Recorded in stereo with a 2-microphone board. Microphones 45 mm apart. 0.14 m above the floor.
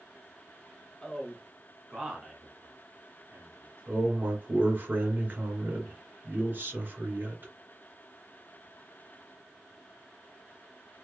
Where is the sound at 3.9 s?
45° right (ahead or behind), 2.0 m.